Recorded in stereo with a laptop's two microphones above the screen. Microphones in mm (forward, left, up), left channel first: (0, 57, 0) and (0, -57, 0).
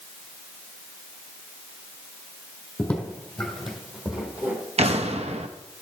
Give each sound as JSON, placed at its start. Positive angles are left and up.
{"t": 2.8, "sound": "footsteps", "side_deg": 15, "distance_m": 2.0}
{"t": 4.8, "sound": "an explosion", "side_deg": -65, "distance_m": 0.8}